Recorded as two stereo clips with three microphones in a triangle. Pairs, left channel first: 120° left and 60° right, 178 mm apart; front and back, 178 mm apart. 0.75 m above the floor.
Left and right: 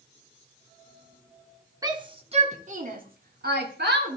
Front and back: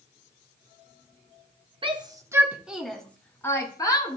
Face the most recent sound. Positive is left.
turn(degrees=-65)